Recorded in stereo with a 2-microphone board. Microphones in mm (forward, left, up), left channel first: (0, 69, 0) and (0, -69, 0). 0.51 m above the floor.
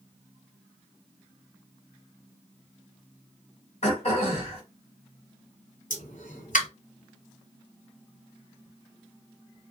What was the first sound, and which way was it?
Throat clearing, 55° left (ahead or behind).